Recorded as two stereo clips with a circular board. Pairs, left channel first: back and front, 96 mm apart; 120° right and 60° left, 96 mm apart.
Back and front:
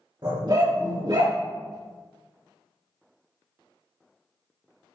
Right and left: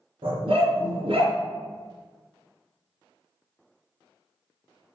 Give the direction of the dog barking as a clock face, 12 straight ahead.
11 o'clock.